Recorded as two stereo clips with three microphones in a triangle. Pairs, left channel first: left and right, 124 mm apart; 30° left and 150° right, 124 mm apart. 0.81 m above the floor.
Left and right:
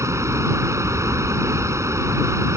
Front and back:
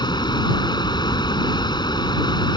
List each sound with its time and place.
0.0 s running water: 25° right